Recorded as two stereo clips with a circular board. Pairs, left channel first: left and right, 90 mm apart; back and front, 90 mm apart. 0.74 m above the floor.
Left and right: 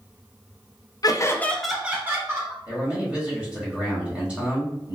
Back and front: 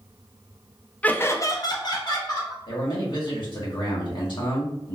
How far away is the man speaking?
About 1.3 m.